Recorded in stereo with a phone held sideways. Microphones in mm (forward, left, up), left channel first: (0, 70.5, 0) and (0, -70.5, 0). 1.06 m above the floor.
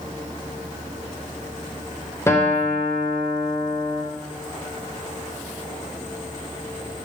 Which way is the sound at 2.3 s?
20° left (ahead or behind).